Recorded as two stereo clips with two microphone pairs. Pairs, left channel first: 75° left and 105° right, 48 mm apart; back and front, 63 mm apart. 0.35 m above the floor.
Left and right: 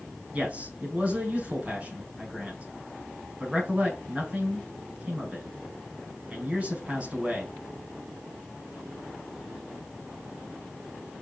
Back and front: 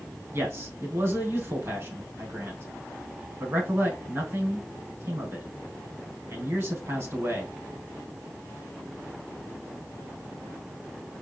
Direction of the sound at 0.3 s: 45° right.